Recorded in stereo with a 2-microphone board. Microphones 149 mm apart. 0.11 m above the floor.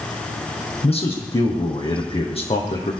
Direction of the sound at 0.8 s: 45° left (ahead or behind).